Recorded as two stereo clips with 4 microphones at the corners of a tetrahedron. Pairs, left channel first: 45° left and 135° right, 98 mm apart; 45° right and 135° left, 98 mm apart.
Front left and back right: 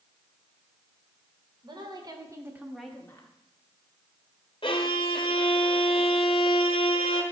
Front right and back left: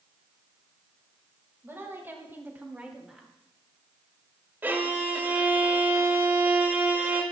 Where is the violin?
65° left, 1.4 m.